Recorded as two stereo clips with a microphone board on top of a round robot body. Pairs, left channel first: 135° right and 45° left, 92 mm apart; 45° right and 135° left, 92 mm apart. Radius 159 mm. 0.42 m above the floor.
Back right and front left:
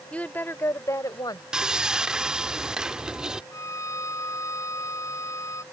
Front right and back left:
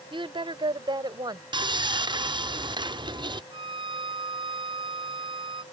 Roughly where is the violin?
Behind.